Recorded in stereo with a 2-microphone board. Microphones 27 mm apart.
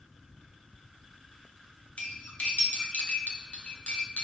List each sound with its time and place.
2.0 s cutlery clinking: 55° left (ahead or behind), 1.9 m